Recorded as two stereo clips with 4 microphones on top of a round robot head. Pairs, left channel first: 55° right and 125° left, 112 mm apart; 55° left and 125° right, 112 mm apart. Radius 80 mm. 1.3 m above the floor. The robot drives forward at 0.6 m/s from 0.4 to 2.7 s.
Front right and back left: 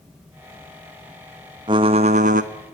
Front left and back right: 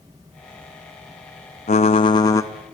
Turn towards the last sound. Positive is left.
turn(degrees=130)